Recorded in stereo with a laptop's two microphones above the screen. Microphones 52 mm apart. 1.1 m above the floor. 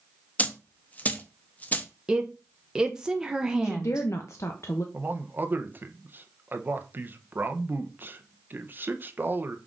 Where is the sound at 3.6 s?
60° left (ahead or behind), 0.6 m.